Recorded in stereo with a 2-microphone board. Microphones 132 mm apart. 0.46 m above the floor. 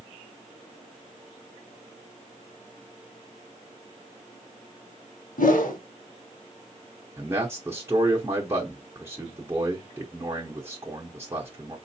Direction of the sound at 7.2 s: 20° right (ahead or behind).